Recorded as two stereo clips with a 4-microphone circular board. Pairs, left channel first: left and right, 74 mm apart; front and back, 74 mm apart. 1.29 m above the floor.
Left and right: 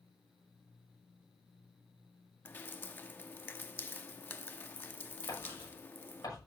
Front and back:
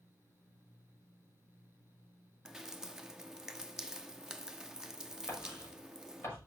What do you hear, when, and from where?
2.5 s dripping: 105° left, 0.8 m
5.3 s writing: 55° left, 6 m